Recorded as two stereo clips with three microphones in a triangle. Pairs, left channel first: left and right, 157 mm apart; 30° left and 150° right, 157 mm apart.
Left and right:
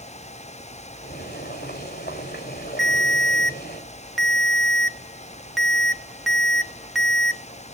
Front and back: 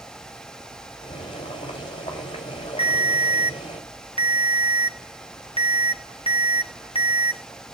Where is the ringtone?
Straight ahead, 1.2 m.